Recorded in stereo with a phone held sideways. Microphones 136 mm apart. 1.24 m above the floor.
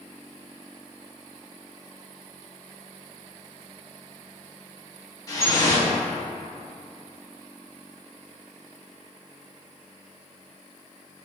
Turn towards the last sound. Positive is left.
turn(degrees=25)  # may be behind; listen again after turning